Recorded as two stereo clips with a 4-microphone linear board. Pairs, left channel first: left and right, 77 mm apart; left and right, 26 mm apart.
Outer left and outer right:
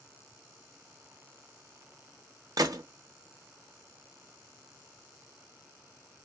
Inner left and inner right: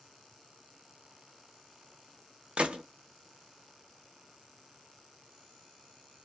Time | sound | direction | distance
2.6 | a gunshot | 55° right (ahead or behind) | 0.6 m